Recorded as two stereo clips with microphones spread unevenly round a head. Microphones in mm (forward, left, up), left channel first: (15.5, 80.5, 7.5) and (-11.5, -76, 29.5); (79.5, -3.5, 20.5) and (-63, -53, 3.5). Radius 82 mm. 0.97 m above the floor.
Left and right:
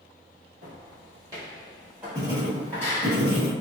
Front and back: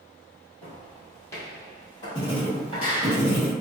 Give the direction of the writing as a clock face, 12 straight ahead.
1 o'clock.